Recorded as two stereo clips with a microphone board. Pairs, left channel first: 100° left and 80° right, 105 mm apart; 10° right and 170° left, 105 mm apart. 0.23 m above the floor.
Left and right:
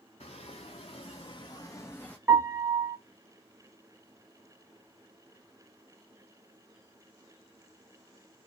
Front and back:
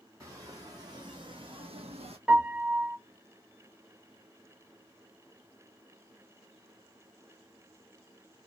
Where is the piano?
110° right, 0.9 m.